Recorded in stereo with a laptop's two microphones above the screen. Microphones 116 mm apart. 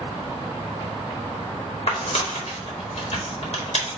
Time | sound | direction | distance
1.9 | tearing paper | 60° left (ahead or behind) | 1.2 m